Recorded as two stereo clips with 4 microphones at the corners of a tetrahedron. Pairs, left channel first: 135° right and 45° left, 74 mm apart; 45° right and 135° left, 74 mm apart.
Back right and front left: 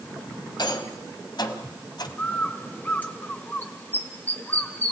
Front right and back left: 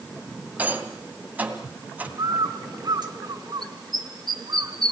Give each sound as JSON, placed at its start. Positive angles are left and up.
{"t": 0.6, "sound": "a rattle", "azimuth_deg": -155, "distance_m": 1.7}
{"t": 2.2, "sound": "a bird", "azimuth_deg": 160, "distance_m": 1.8}